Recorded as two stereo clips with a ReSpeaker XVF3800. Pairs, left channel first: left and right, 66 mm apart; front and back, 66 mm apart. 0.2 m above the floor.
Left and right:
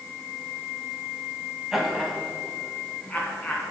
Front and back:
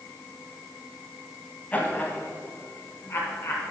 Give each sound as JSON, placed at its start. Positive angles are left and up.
{"t": 1.7, "sound": "laughter", "azimuth_deg": -15, "distance_m": 1.4}